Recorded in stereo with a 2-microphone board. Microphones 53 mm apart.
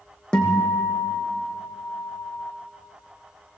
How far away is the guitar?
About 2.5 m.